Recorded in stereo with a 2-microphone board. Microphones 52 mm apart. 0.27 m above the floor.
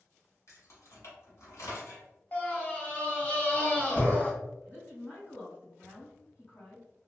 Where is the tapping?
I don't hear tapping.